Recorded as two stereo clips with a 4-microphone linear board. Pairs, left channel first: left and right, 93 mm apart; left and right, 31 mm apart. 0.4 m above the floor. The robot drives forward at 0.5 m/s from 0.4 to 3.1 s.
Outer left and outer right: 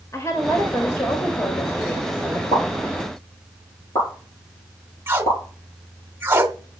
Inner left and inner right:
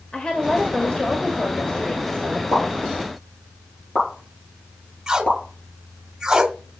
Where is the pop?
45° left (ahead or behind), 7 m.